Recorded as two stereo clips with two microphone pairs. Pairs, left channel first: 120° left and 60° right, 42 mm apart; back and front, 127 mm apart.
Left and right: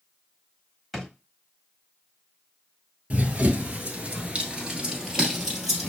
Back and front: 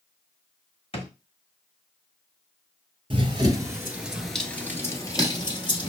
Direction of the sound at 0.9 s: 150° right.